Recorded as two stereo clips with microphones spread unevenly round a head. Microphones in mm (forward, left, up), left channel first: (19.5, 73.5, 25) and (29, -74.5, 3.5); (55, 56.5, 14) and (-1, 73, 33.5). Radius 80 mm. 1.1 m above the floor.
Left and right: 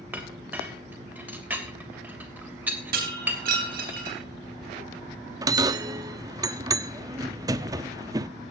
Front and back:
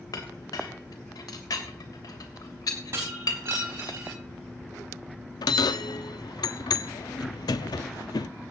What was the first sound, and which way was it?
A clink, 5° right.